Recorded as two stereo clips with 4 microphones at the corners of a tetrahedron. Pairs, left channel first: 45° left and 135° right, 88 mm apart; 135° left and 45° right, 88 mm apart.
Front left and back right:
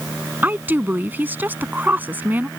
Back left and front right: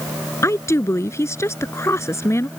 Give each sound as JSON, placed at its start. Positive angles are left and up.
{"t": 0.4, "sound": "a woman speaking", "azimuth_deg": 170}